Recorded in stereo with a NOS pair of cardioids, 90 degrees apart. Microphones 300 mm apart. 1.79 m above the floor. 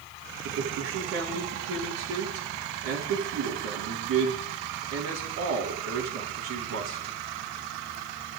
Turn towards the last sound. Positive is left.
turn(degrees=-60)